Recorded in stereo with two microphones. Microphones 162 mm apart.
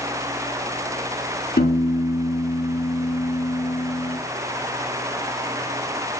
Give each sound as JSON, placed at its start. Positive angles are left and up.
{"t": 1.6, "sound": "a piano", "side_deg": 80, "distance_m": 5.0}